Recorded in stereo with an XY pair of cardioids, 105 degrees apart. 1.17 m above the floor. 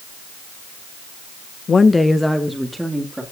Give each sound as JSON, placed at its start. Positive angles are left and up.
{"t": 1.7, "sound": "a woman speaking", "azimuth_deg": 40, "distance_m": 0.7}